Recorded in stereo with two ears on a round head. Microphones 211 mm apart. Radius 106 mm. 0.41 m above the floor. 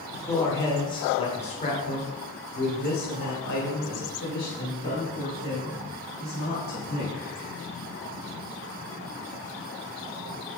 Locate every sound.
0.1 s a man speaking: 10° left (ahead or behind), 1.6 m; by 7.2 s 55° left (ahead or behind), 3.5 m